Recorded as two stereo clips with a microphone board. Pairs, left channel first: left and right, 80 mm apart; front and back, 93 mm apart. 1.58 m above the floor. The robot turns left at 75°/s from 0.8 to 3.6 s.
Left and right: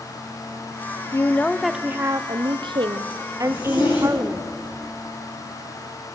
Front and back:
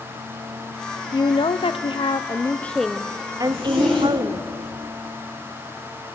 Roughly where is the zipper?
Left.